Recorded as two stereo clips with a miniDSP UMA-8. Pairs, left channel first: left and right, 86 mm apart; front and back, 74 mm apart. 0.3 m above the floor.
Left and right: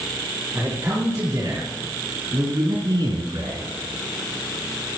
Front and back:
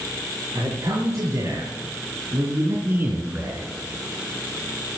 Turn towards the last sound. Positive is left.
turn(degrees=-110)